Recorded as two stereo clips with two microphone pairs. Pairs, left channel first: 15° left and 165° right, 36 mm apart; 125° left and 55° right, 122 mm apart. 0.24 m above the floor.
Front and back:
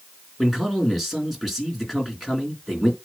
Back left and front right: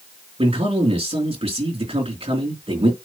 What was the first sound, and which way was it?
A man speaking, 80° right.